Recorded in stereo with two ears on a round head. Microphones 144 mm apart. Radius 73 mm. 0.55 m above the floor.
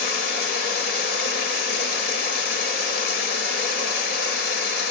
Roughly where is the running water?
Left.